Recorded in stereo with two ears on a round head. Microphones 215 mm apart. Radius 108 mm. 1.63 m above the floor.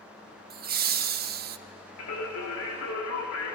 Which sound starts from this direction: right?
Laughter, at 0.5 s.